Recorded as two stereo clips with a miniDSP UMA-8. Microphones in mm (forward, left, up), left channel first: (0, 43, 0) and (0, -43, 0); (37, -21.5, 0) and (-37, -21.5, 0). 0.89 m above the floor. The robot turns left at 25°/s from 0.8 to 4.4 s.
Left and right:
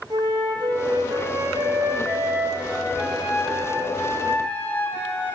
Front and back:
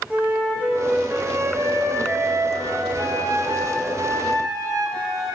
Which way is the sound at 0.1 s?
110° right.